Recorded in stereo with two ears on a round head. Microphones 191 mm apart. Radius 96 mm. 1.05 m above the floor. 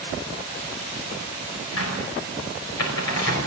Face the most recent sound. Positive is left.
turn(degrees=80)